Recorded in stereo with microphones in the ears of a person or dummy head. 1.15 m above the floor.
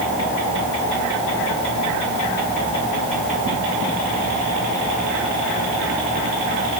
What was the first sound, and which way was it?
Only background noise.